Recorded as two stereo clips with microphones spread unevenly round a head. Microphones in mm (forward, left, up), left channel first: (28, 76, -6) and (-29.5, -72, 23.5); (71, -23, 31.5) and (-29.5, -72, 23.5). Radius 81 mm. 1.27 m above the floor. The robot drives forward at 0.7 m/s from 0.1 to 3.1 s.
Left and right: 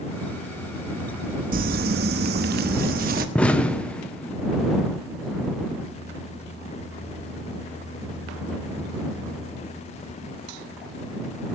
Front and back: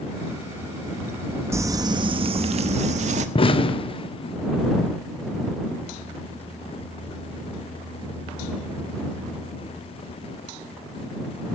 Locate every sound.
1.5 s crumpling: 90° right, 1.0 m; by 3.2 s 140° right, 1.5 m
3.4 s an explosion: 5° right, 1.0 m